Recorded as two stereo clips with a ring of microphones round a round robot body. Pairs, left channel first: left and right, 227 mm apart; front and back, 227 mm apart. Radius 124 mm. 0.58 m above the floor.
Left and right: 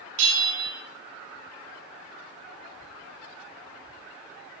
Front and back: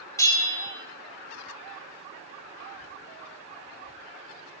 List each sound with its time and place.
0.2 s a bell: 75° right, 2 m